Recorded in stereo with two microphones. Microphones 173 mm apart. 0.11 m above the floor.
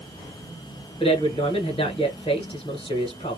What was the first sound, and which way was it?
A man speaking, 35° left (ahead or behind).